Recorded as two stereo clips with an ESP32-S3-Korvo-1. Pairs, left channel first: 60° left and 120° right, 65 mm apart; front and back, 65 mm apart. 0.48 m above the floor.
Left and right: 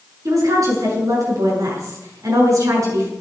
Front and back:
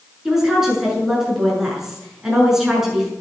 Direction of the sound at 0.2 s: 95° right.